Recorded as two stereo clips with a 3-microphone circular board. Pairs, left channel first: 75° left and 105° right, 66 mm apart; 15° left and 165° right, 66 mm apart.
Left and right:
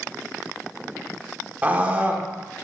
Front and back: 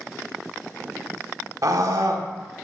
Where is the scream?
165° right, 1.2 m.